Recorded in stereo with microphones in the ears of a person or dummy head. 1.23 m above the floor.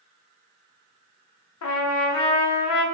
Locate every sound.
1.6 s a trumpet: 75° left (ahead or behind), 0.5 m